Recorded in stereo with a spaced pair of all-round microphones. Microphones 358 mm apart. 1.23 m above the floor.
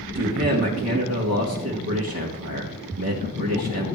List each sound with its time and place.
0.1 s a man speaking: 45° right (ahead or behind), 1.8 m